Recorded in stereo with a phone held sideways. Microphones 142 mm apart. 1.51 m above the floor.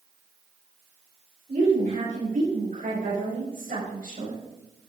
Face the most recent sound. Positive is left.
turn(degrees=-75)  # may be behind; listen again after turning